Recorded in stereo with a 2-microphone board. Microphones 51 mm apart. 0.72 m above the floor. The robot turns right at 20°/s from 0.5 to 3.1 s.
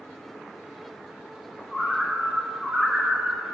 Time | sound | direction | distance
1.7 | a bird | 10° left (ahead or behind) | 0.8 m